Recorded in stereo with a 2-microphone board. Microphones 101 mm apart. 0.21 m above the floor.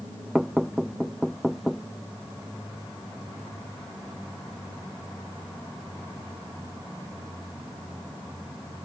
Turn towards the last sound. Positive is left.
turn(degrees=0)  # may be behind; listen again after turning